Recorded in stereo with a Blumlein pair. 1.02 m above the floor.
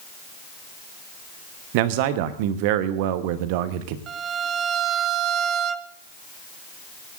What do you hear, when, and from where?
1.7 s a man speaking: 45° right, 1.1 m
4.1 s a violin: 30° right, 0.7 m